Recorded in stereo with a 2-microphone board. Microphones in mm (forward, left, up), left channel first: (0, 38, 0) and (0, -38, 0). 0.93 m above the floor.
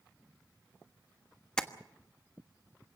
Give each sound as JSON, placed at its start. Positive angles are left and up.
{"t": 1.6, "sound": "tapping", "side_deg": 10, "distance_m": 1.2}